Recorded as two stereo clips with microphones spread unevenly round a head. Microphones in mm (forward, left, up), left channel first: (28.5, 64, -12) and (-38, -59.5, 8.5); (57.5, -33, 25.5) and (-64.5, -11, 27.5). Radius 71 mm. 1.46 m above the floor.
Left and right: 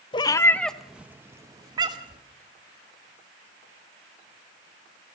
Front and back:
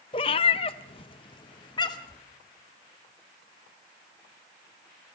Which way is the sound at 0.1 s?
15° left.